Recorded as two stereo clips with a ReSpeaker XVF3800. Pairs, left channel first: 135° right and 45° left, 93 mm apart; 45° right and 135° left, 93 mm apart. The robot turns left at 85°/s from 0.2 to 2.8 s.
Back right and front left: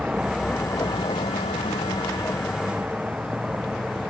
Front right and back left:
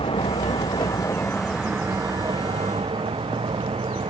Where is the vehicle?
35° right; by 4.1 s 130° left.